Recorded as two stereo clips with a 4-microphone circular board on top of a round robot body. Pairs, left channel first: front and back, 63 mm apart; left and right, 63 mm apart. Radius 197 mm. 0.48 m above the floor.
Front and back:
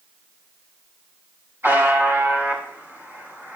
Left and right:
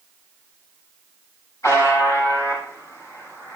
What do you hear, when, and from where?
1.6 s a buzzer: 125° left, 7 m